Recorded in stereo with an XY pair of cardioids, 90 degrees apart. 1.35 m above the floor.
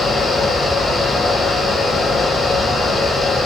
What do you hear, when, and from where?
0.0 s a fan: 35° left, 3.5 m